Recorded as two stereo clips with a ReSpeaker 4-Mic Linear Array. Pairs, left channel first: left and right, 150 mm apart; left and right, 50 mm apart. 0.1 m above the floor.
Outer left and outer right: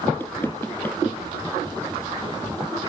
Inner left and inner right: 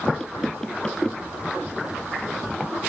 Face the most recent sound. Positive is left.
turn(degrees=15)  # may be behind; listen again after turning